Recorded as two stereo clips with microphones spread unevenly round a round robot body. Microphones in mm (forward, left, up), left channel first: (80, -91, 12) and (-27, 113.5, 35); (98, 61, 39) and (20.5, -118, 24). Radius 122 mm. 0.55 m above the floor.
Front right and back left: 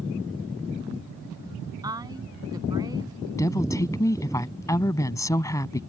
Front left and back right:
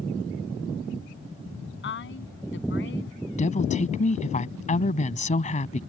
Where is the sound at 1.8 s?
45° left.